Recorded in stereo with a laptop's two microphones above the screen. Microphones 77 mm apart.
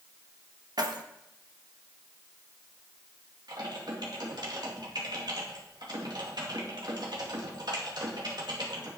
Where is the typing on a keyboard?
60° right (ahead or behind), 2 m.